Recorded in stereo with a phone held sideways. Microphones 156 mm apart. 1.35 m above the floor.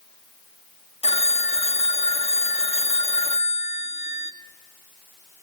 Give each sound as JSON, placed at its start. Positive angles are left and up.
{"t": 1.0, "sound": "a phone ringing", "side_deg": 40, "distance_m": 1.5}